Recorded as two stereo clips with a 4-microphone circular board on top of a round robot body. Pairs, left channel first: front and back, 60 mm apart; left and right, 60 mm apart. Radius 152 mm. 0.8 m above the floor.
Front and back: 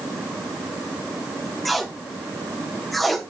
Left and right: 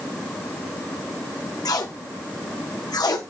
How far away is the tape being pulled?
About 1.0 m.